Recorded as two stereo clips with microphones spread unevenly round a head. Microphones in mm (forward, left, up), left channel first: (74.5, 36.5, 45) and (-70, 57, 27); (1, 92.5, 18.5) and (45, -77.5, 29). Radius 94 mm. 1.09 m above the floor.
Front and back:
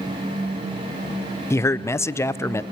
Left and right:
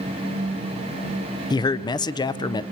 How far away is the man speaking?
About 0.5 m.